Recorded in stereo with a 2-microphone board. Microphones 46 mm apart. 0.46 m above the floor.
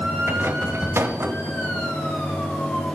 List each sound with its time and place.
0.3 s a rattle: 60° right (ahead or behind), 0.8 m